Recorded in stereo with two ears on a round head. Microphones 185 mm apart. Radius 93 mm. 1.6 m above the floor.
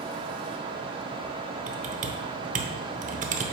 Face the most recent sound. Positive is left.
turn(degrees=-35)  # may be behind; listen again after turning